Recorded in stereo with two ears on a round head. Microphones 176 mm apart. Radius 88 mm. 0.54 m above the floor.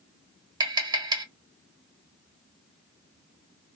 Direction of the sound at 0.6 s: 20° right (ahead or behind).